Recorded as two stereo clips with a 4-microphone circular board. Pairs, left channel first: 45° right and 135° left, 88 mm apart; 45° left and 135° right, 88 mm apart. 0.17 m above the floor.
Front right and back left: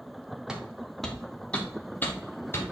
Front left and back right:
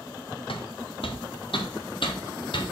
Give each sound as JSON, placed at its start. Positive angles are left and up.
{"t": 0.5, "sound": "footsteps", "azimuth_deg": 55, "distance_m": 1.7}